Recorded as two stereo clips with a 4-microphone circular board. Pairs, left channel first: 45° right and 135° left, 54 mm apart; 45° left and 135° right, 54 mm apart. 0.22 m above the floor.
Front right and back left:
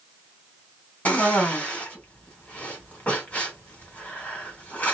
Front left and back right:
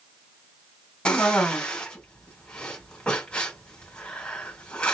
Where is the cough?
10° right, 1.8 m.